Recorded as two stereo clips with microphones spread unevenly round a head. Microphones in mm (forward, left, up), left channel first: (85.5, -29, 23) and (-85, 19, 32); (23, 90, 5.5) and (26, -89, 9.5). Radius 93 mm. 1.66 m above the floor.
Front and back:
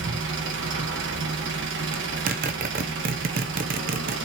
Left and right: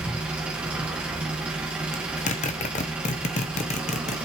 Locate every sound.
0.0 s an engine running: 175° right, 1.5 m
1.9 s a zipper: 135° left, 0.7 m